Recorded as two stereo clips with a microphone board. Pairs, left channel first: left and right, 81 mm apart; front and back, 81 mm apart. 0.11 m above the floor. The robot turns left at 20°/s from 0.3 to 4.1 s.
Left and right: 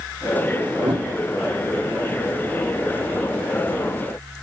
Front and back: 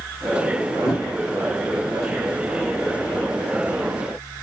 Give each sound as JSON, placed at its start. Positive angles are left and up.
{"t": 0.8, "sound": "a whoosh", "azimuth_deg": -85, "distance_m": 5.0}